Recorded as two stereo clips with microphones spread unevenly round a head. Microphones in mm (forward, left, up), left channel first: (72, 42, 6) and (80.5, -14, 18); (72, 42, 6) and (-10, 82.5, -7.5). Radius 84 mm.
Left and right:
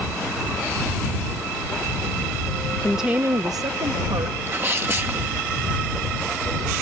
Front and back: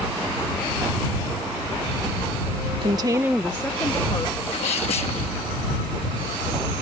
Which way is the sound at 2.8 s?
165° left.